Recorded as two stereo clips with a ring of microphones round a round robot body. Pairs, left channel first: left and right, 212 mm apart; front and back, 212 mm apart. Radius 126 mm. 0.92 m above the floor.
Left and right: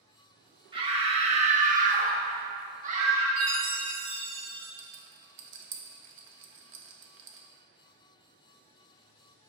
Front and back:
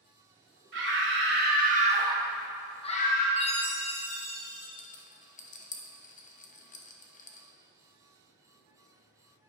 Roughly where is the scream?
Behind right.